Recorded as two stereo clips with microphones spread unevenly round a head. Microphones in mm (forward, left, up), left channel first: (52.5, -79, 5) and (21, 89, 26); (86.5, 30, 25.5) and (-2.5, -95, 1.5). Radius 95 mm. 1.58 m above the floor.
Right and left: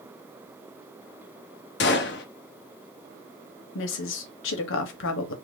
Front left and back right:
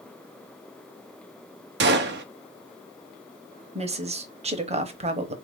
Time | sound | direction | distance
1.8 | a gunshot | 120° right | 0.6 m
3.8 | a woman speaking | 75° right | 0.9 m